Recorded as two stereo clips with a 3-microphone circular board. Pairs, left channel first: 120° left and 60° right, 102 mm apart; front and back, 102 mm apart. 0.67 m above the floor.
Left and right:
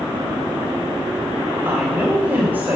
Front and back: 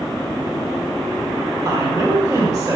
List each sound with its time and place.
1.6 s a woman speaking: 130° right, 2 m